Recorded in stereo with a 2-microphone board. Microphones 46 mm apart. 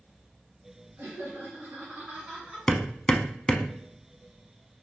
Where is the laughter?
45° right (ahead or behind), 1.9 m; by 2.7 s 10° right (ahead or behind), 1.6 m.